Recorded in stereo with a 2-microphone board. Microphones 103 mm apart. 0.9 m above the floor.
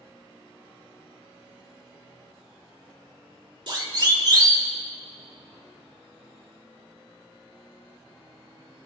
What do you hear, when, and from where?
3.7 s a siren: 50° right (ahead or behind), 2.5 m; by 4.7 s 40° right (ahead or behind), 2.5 m